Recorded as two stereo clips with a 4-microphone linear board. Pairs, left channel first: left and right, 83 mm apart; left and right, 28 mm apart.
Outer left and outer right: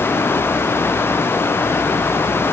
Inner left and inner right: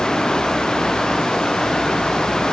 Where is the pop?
No pop in this recording.